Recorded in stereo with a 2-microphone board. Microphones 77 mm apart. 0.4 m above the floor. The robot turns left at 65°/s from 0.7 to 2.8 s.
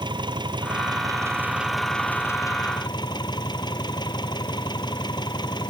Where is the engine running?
110° right; by 5.7 s 115° left.